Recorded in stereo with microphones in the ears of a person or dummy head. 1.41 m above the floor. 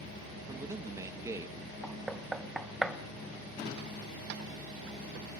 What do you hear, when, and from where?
0.5 s a man speaking: 20° right (ahead or behind), 1.4 m
1.8 s knocking: centre (ahead or behind), 0.7 m